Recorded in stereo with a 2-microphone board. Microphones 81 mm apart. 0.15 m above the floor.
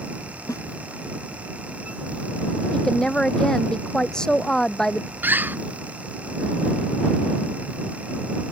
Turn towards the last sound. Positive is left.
turn(degrees=-25)  # may be behind; listen again after turning